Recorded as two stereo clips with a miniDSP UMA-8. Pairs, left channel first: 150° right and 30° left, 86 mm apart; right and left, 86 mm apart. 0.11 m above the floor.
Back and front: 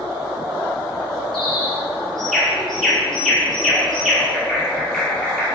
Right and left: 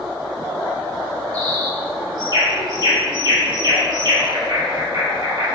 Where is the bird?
125° left, 1.8 m.